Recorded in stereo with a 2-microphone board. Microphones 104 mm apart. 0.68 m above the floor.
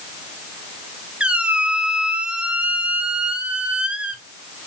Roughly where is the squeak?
Centre.